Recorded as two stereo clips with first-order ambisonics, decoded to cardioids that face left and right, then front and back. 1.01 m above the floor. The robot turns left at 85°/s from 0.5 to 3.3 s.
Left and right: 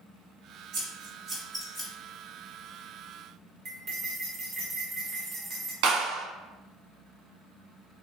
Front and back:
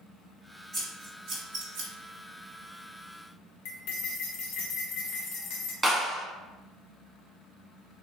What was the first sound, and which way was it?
Scissors, 105° right.